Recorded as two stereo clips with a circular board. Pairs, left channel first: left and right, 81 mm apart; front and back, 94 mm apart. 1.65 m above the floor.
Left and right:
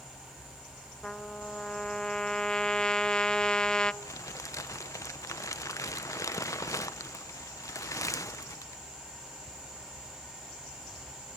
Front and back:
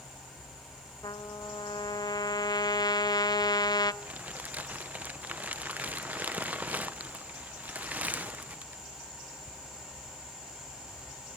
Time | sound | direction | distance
1.0 | a trumpet | 15° left | 1.1 m
4.0 | crumpling | 115° left | 0.7 m